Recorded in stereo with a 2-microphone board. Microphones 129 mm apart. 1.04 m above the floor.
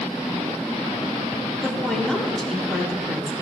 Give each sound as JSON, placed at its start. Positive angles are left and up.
{"t": 1.6, "sound": "a woman speaking", "side_deg": 5, "distance_m": 3.0}